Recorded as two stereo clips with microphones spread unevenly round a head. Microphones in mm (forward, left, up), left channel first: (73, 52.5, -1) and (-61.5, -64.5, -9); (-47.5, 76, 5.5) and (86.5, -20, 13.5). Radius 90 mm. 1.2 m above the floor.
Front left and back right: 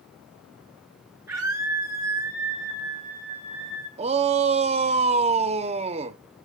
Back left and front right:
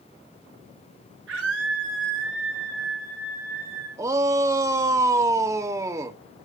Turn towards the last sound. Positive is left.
turn(degrees=-105)